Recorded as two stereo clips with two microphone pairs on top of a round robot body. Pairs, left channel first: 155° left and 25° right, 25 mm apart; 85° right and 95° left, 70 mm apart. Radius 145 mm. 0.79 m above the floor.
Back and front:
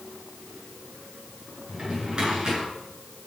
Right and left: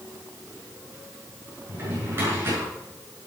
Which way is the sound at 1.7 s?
35° left.